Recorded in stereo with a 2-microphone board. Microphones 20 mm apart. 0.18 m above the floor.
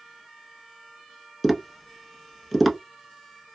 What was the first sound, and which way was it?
Tapping, centre (ahead or behind).